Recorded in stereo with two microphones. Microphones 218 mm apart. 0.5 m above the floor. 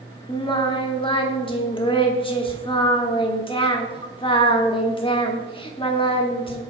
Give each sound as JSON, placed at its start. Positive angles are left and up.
{"t": 0.3, "sound": "singing", "side_deg": 25, "distance_m": 0.8}